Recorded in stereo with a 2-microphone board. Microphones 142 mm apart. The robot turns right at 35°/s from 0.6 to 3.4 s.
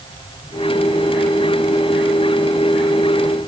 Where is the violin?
I don't hear a violin.